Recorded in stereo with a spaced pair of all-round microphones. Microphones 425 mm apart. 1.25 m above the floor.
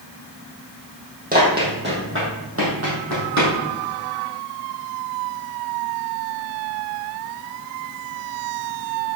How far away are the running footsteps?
About 3 m.